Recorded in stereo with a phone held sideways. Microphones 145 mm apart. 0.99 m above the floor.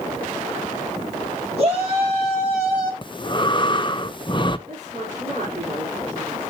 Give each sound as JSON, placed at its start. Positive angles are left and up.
{"t": 1.6, "sound": "a shout", "side_deg": -45, "distance_m": 7.0}
{"t": 3.0, "sound": "breathing", "side_deg": 35, "distance_m": 0.5}
{"t": 4.7, "sound": "a woman speaking", "side_deg": -80, "distance_m": 3.5}